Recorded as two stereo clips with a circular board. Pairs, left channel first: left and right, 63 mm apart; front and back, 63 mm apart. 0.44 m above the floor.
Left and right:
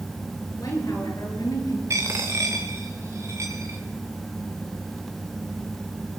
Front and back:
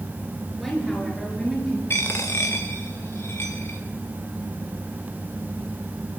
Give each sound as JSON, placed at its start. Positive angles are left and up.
{"t": 0.6, "sound": "a woman speaking", "azimuth_deg": 90, "distance_m": 8.0}
{"t": 1.9, "sound": "a dropped coin", "azimuth_deg": -50, "distance_m": 2.5}